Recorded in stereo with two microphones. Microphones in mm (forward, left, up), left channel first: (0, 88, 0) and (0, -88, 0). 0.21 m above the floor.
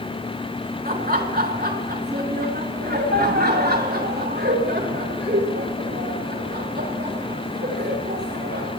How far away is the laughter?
About 3 m.